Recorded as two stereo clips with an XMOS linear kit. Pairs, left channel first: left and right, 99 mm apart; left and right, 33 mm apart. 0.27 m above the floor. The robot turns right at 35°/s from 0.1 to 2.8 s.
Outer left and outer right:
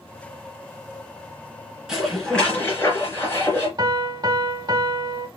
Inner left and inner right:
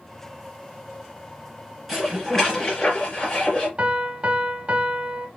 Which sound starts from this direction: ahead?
Dishes clattering, at 1.9 s.